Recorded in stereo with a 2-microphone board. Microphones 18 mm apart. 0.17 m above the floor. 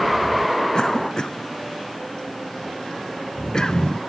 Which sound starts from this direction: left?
A cough, at 0.7 s.